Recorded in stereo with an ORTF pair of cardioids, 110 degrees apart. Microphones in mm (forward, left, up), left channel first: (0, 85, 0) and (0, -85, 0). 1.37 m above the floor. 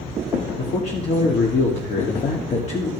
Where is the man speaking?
40° left, 2.5 m.